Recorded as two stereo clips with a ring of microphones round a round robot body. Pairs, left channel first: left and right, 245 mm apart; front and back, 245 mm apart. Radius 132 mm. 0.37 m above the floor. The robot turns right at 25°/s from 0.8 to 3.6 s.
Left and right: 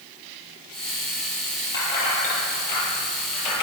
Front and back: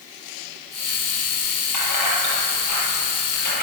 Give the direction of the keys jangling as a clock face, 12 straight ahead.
12 o'clock.